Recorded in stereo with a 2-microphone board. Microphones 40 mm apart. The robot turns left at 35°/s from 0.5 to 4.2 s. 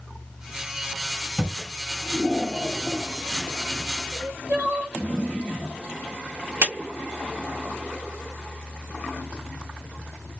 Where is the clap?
70° right (ahead or behind), 3 m.